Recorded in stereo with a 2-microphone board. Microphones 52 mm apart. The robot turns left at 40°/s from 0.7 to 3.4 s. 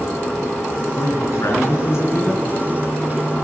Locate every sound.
0.9 s a man speaking: 100° left, 4 m; by 2.4 s 40° left, 4 m